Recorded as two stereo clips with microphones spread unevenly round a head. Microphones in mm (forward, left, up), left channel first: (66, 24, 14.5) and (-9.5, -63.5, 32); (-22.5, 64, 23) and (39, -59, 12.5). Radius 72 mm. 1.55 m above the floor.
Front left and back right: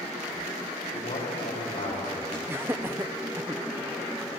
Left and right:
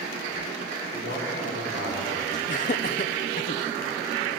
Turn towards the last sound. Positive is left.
turn(degrees=155)